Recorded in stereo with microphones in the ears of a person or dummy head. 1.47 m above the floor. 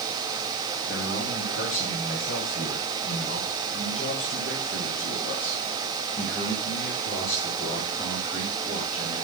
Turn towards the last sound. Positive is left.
turn(degrees=25)  # may be behind; listen again after turning